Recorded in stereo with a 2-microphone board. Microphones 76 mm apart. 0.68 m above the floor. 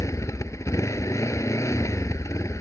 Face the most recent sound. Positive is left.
turn(degrees=45)  # may be behind; listen again after turning